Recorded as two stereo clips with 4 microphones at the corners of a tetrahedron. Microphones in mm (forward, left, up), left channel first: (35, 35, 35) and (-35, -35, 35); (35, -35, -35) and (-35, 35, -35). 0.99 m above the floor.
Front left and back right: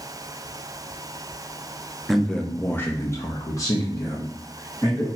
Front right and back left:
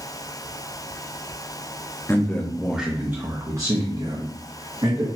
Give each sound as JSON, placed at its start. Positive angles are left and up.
{"t": 2.1, "sound": "a man speaking", "azimuth_deg": -45, "distance_m": 0.6}